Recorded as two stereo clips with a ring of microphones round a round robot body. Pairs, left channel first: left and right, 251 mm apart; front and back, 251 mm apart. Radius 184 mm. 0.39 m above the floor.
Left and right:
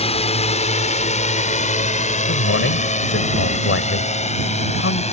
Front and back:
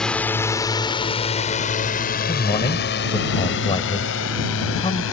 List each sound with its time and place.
0.0 s a drone: 85° left; by 5.1 s 30° left
2.3 s a man speaking: 70° left